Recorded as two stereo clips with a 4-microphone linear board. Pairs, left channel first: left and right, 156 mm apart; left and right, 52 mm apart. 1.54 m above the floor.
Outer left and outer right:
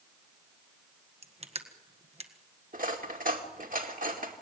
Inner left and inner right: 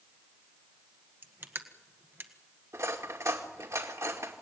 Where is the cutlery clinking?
60° right (ahead or behind), 2.5 m.